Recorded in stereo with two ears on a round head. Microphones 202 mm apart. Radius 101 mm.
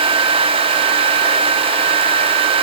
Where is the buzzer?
No buzzer in this recording.